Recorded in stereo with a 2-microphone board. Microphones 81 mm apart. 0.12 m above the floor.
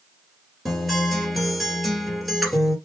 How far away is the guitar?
About 2.5 m.